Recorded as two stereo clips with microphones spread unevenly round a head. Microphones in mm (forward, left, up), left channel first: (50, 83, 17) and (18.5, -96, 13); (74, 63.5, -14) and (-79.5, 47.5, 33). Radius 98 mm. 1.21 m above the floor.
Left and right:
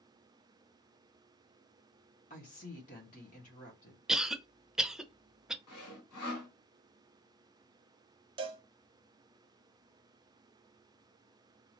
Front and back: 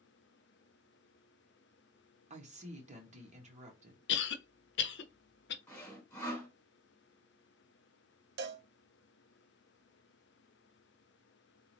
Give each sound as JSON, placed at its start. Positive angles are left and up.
{"t": 2.3, "sound": "a woman speaking", "azimuth_deg": 135, "distance_m": 1.8}
{"t": 4.1, "sound": "a cough", "azimuth_deg": -15, "distance_m": 0.7}
{"t": 5.7, "sound": "sawing", "azimuth_deg": 90, "distance_m": 2.5}
{"t": 8.4, "sound": "a cowbell", "azimuth_deg": -170, "distance_m": 0.6}